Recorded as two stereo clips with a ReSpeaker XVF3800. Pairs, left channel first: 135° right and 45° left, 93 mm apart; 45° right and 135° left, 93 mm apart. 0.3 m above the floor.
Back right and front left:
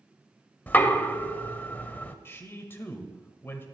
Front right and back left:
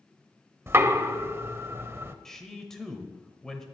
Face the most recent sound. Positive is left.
turn(degrees=-125)